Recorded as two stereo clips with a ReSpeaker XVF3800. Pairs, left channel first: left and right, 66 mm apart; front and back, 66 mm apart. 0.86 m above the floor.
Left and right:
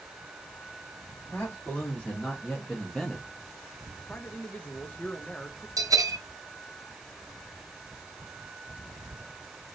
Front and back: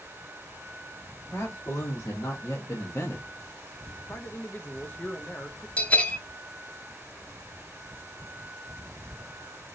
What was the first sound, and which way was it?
A man speaking, 35° left.